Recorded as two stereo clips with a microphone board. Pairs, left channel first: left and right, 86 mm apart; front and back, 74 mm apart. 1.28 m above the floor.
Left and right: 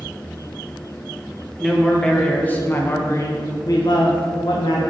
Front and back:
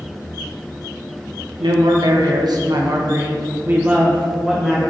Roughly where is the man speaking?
Behind.